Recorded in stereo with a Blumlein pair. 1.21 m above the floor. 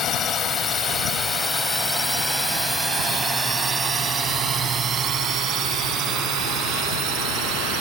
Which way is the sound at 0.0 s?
25° left.